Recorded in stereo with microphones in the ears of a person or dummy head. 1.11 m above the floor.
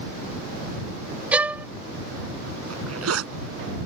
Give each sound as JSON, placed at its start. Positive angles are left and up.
{"t": 1.3, "sound": "a violin", "side_deg": -5}
{"t": 2.7, "sound": "a zipper", "side_deg": -85}